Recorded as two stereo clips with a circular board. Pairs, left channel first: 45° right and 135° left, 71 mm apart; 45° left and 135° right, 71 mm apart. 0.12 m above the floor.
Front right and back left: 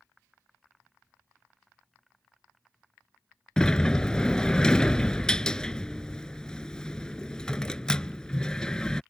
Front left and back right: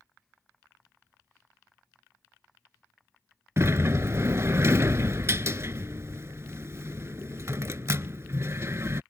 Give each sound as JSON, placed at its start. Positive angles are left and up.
{"t": 3.6, "sound": "a sliding door", "azimuth_deg": -115}